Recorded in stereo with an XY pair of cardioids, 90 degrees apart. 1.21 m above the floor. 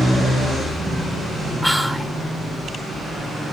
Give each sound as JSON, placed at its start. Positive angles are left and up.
{"t": 1.6, "sound": "whispering", "azimuth_deg": 5, "distance_m": 1.5}